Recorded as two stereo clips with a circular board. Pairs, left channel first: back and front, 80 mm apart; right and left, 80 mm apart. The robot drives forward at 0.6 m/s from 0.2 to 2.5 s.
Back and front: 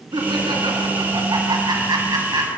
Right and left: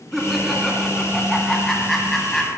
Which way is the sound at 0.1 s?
Straight ahead.